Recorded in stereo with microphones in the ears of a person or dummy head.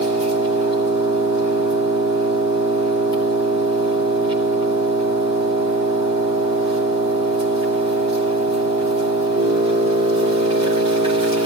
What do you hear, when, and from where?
0.0 s an engine running: 30° right (ahead or behind), 2.5 m